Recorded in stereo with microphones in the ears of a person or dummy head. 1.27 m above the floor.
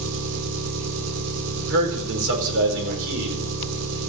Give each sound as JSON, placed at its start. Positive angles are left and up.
{"t": 0.0, "sound": "an engine running", "side_deg": -75, "distance_m": 2.0}
{"t": 1.6, "sound": "a man speaking", "side_deg": -70, "distance_m": 4.5}